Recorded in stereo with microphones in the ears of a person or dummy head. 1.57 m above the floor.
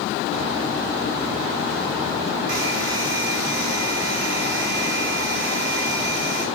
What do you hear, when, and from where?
2.5 s a hair dryer: 70° right (ahead or behind), 3.5 m